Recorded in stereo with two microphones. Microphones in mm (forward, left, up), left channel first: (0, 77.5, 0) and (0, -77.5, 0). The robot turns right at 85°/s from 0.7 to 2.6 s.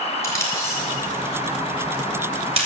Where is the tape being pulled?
20° left (ahead or behind), 3 m; by 2.7 s 40° right (ahead or behind), 3 m.